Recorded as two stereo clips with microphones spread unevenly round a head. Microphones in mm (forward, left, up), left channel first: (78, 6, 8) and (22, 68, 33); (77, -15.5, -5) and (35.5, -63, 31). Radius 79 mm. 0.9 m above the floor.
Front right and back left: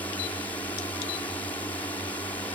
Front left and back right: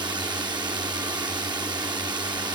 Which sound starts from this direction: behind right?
A drone, at 0.0 s.